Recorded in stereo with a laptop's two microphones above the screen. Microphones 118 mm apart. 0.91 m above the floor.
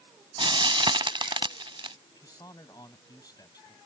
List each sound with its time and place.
0.4 s frying: 45° right (ahead or behind)
2.1 s a man speaking: 35° left (ahead or behind)